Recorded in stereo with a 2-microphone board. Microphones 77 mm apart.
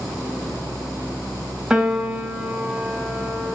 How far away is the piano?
About 0.7 m.